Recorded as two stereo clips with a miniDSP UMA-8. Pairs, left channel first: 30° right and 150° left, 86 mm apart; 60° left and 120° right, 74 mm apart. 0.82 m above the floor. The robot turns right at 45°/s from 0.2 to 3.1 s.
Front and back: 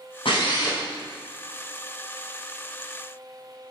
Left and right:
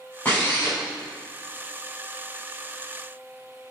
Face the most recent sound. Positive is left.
turn(degrees=125)